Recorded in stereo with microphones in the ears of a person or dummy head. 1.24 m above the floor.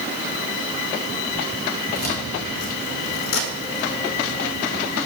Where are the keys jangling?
50° left (ahead or behind), 1.6 m; by 5.0 s 25° left (ahead or behind), 1.0 m.